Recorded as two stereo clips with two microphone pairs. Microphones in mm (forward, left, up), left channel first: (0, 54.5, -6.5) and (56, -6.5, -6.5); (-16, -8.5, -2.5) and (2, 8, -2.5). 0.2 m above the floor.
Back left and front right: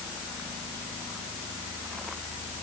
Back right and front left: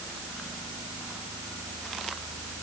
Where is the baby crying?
I don't hear a baby crying.